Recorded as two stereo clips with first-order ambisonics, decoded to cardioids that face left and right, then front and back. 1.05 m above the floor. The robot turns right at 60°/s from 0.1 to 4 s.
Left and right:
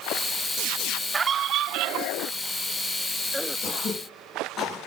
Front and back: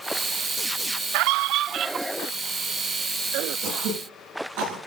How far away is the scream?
About 0.7 m.